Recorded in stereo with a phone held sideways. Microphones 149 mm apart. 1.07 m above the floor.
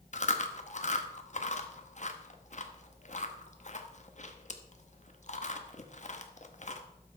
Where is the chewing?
50° left (ahead or behind), 0.9 m.